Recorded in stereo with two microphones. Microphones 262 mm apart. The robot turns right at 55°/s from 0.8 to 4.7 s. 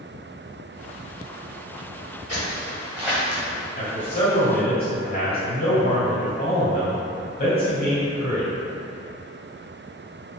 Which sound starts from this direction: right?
Footsteps, at 2.3 s.